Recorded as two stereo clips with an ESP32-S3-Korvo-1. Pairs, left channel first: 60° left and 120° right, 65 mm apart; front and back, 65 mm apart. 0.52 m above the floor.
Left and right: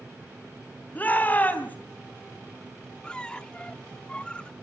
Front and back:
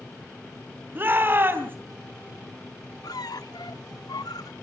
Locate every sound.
0.9 s a shout: 125° left, 3 m
3.0 s a squeak: 15° right, 0.5 m